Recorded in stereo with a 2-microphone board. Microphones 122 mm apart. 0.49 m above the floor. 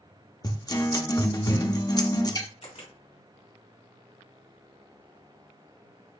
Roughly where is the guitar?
Left.